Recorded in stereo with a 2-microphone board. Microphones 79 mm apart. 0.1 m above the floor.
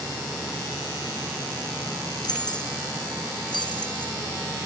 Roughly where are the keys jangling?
Left.